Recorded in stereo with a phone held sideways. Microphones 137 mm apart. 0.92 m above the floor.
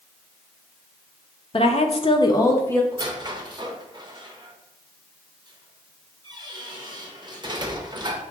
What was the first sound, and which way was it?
A woman speaking, 40° left (ahead or behind).